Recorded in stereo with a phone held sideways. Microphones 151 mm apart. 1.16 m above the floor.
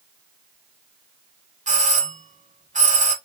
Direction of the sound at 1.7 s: 55° right (ahead or behind).